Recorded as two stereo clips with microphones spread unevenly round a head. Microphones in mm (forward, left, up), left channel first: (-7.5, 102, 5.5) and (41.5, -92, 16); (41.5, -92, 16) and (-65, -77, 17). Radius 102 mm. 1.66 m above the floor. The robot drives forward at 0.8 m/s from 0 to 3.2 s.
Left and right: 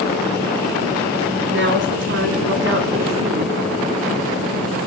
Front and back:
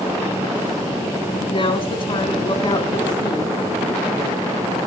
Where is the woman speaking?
40° right, 3.5 m; by 3.6 s 60° right, 2.5 m.